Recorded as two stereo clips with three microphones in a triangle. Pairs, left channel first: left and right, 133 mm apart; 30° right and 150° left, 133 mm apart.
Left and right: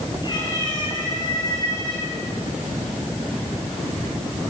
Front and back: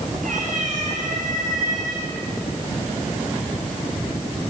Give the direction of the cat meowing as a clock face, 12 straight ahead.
7 o'clock.